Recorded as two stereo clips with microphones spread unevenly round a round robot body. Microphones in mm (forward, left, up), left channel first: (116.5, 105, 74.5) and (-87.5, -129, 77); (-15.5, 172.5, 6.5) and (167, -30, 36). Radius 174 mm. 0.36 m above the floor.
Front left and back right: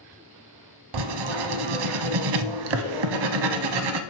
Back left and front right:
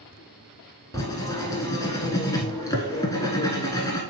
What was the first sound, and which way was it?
Writing, 145° right.